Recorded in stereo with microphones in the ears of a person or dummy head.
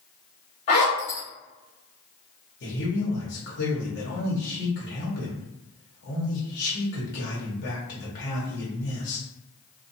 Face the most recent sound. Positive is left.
turn(degrees=55)  # may be behind; listen again after turning